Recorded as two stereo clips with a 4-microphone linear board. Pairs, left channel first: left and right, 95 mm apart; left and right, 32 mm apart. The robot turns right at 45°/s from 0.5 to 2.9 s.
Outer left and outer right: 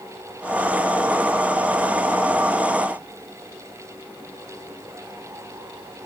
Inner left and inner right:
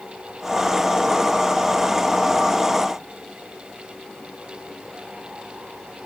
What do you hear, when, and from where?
Only background noise.